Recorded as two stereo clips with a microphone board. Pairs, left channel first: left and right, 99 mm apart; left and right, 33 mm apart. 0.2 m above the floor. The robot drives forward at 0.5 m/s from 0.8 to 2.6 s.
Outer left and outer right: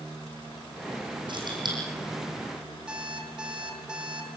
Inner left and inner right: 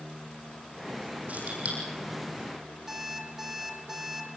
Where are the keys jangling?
50° right (ahead or behind), 7.5 m.